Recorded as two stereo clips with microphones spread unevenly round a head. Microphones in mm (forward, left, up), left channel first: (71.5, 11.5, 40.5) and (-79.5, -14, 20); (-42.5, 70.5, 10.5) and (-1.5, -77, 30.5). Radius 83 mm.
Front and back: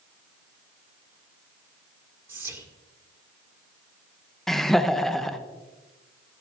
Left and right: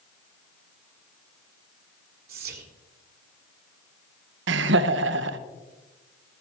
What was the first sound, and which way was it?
Whispering, 95° right.